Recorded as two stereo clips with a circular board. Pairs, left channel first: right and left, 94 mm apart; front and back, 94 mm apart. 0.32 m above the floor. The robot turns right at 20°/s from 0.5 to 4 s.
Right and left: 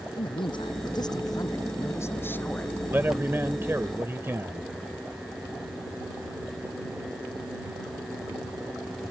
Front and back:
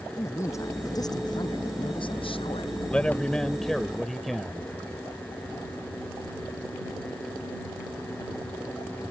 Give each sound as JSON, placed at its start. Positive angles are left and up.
{"t": 0.2, "sound": "a man speaking", "azimuth_deg": -60}
{"t": 2.9, "sound": "a man speaking", "azimuth_deg": 60}